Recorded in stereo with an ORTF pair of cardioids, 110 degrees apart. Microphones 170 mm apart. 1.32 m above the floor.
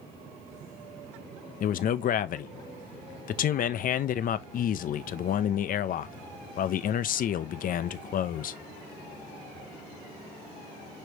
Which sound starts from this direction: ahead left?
A man speaking, at 1.6 s.